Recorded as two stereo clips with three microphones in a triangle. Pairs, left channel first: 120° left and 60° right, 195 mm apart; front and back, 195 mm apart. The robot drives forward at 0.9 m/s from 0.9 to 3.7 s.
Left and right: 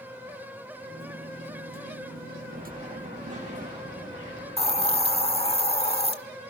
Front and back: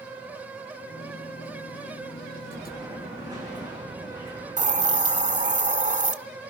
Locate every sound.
2.5 s an explosion: 105° right, 9 m; by 5.6 s 110° right, 9.5 m
4.6 s a hiss: 160° left, 1.1 m